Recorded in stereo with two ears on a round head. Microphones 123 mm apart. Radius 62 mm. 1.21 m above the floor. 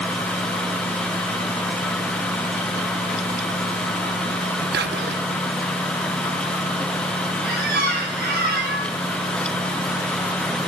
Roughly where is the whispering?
Right.